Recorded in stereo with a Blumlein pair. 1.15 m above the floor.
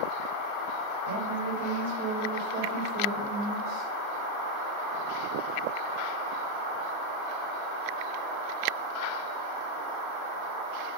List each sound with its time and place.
1.1 s a woman speaking: 55° right, 3 m; by 3.9 s 35° right, 4 m